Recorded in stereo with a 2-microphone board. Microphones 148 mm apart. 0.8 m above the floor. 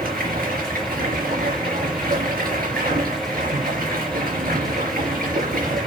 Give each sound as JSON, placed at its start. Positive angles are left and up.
{"t": 0.0, "sound": "running water", "side_deg": -85, "distance_m": 4.0}